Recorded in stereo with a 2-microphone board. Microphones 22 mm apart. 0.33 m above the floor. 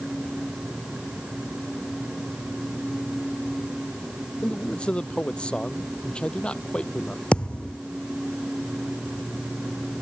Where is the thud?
55° left (ahead or behind).